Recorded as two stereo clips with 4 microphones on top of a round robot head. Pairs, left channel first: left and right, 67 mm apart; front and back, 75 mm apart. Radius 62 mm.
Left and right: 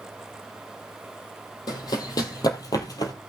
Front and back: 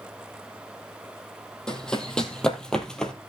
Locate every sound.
1.7 s running footsteps: 80° left, 2.5 m